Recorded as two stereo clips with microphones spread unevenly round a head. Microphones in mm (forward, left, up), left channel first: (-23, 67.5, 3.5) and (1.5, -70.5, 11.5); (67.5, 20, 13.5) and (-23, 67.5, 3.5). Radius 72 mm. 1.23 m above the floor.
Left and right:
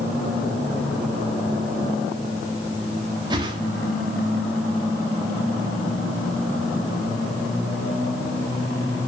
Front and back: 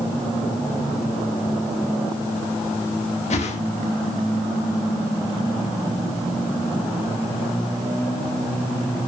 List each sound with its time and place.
3.3 s a whoosh: 15° right, 1.8 m